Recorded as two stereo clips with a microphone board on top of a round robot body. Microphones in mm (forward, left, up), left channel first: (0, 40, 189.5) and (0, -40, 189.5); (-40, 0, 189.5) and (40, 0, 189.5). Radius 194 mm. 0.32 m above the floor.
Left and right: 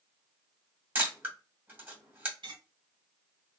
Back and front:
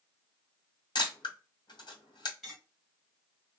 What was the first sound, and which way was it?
A camera shutter, 155° right.